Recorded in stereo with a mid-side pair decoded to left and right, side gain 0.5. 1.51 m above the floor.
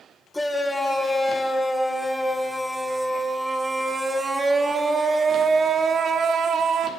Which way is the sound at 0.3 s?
10° left.